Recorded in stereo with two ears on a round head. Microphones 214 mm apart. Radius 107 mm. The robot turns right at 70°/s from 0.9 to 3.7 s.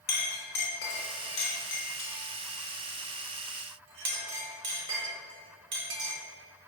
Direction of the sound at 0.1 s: 40° left (ahead or behind).